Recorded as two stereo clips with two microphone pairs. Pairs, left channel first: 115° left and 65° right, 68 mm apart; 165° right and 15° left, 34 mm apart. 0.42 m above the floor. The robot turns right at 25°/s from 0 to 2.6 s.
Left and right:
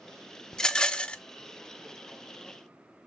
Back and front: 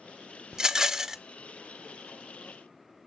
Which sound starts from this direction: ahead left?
A rattle, at 0.5 s.